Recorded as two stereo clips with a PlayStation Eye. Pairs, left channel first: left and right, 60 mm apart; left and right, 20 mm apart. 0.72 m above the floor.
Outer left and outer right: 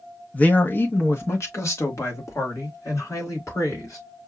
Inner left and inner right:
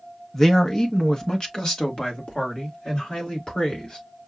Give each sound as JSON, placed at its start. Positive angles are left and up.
{"t": 0.3, "sound": "a man speaking", "side_deg": 20, "distance_m": 0.8}